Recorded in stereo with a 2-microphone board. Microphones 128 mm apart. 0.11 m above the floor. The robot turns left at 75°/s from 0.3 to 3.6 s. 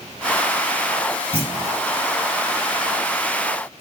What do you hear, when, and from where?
1.3 s a clunk: 45° left, 2 m; by 1.8 s 10° left, 2 m